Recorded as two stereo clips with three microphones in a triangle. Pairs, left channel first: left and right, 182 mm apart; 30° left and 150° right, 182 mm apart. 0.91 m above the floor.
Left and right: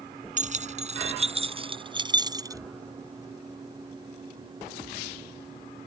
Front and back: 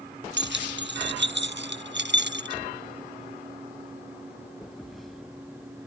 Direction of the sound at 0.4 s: 140° right.